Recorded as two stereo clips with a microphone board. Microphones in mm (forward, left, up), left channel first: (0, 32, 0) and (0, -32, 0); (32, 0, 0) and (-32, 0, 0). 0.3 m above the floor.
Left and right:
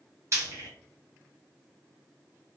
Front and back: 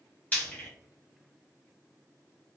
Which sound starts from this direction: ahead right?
Frying, at 0.3 s.